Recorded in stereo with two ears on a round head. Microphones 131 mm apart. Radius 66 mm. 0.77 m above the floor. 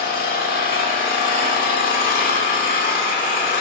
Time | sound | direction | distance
0.0 | an engine running | 60° left (ahead or behind) | 2.0 m